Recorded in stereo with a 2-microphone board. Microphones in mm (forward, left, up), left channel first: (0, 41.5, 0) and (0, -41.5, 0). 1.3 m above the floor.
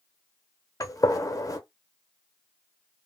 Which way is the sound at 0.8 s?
40° left (ahead or behind).